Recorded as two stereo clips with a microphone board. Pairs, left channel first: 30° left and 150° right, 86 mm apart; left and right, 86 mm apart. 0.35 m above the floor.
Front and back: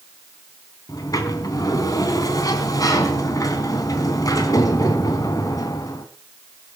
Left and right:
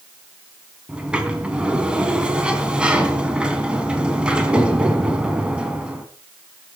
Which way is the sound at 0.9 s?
15° right.